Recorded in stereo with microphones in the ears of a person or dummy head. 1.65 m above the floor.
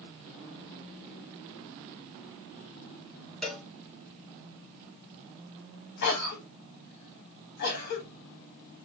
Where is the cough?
50° left (ahead or behind), 0.7 m.